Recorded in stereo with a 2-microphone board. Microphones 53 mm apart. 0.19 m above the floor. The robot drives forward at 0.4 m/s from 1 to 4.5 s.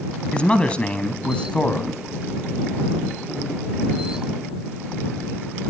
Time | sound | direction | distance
0.3 | a man speaking | 20° left (ahead or behind) | 1.2 m